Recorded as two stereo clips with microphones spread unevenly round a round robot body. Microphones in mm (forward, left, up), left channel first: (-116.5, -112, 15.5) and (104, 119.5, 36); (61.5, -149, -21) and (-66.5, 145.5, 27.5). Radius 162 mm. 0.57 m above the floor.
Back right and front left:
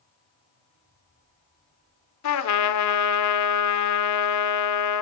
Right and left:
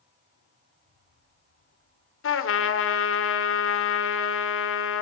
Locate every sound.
2.2 s a trumpet: 110° right, 1.6 m